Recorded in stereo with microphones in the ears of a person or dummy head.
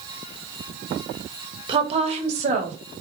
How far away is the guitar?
No guitar in this recording.